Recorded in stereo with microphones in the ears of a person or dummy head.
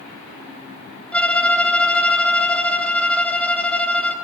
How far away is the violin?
About 3.5 m.